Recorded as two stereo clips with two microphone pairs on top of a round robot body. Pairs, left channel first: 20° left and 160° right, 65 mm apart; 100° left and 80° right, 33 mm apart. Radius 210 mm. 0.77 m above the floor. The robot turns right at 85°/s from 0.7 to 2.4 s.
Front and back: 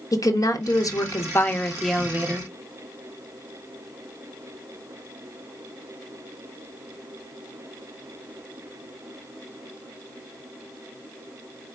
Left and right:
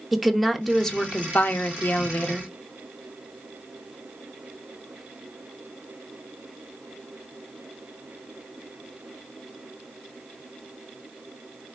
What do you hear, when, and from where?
0.1 s a woman speaking: 15° left, 1.1 m; by 2.5 s 160° left, 1.1 m